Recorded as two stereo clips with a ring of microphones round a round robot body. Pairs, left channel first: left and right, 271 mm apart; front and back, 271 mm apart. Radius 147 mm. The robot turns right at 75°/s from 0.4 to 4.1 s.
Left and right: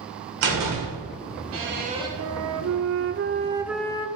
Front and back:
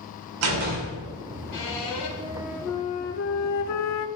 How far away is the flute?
About 0.7 m.